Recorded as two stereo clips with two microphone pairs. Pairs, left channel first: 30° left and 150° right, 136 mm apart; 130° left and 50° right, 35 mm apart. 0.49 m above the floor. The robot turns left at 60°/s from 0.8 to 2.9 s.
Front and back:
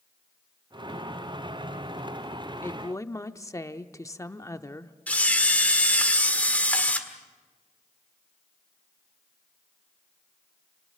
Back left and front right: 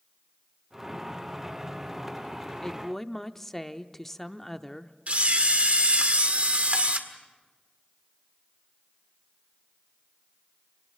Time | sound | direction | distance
2.6 | a woman speaking | 75° left | 0.7 m
5.1 | a camera shutter | 45° right | 1.7 m